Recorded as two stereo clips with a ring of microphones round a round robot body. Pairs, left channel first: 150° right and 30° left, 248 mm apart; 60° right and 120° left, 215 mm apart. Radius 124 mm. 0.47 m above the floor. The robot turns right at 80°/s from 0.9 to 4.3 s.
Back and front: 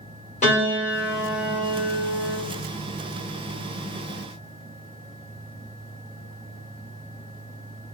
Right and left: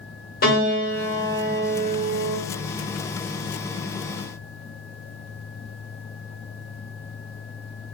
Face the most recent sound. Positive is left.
turn(degrees=175)